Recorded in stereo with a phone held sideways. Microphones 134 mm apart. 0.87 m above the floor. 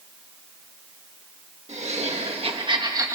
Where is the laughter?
55° right (ahead or behind), 1.4 m; by 3.2 s 20° right (ahead or behind), 1.3 m.